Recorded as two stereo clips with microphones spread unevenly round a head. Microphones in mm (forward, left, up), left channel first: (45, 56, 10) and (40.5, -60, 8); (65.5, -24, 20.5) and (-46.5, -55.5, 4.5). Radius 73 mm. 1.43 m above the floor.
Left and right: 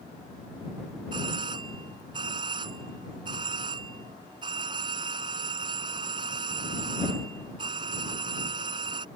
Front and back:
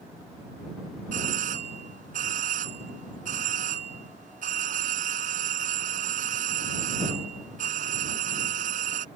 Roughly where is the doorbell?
Behind right.